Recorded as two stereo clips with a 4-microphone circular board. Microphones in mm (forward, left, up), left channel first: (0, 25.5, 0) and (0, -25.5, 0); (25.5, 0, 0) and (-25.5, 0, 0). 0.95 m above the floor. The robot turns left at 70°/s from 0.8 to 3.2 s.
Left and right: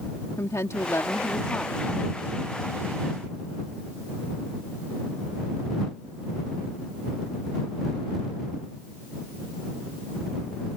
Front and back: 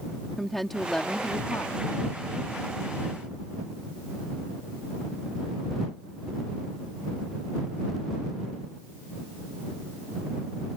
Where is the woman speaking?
85° left; by 1.9 s 10° left.